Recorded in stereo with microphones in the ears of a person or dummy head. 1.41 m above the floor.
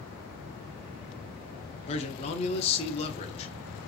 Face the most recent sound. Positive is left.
turn(degrees=35)  # may be behind; listen again after turning